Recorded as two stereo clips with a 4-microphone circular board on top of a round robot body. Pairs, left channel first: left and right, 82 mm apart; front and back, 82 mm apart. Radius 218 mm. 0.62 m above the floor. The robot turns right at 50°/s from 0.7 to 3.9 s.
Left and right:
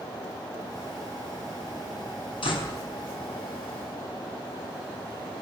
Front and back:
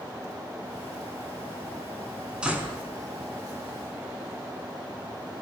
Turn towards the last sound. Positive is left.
turn(degrees=175)